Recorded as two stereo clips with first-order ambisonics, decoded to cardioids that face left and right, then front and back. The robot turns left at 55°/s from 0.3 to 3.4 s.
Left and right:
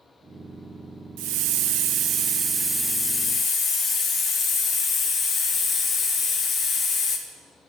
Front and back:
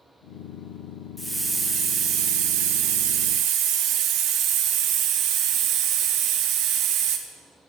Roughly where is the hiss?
Right.